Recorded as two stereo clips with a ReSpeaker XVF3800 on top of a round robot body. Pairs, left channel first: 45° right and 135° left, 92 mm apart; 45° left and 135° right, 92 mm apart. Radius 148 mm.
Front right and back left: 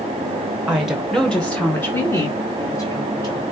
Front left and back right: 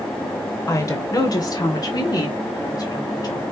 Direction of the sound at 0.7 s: 65° left.